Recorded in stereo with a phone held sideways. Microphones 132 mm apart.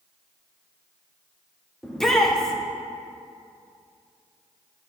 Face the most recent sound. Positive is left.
turn(degrees=5)  # may be behind; listen again after turning